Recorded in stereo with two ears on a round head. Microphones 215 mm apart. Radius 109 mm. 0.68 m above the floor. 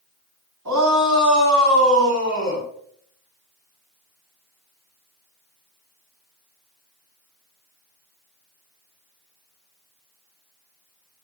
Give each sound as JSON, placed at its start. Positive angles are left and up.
{"t": 0.7, "sound": "a shout", "side_deg": -85, "distance_m": 4.5}